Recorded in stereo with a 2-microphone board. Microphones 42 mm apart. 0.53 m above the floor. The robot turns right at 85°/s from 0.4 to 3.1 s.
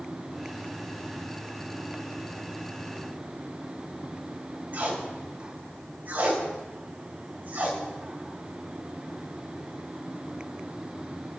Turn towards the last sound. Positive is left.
turn(degrees=-45)  # may be behind; listen again after turning